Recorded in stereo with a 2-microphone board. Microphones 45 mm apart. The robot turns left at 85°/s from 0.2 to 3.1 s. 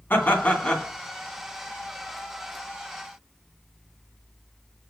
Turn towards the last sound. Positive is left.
turn(degrees=180)